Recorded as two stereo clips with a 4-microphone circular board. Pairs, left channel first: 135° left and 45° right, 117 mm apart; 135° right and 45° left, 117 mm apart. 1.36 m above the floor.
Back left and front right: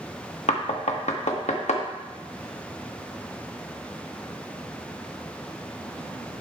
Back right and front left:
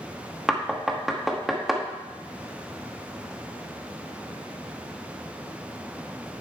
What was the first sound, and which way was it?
Knocking, 135° left.